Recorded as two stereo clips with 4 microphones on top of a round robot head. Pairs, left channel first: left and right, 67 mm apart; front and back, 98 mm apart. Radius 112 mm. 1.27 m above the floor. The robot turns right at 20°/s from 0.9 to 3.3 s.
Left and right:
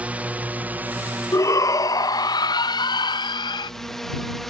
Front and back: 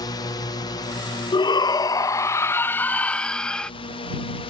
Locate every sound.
0.0 s a drone: 25° right; by 4.5 s 5° left
1.3 s a shout: 45° left; by 3.7 s 85° left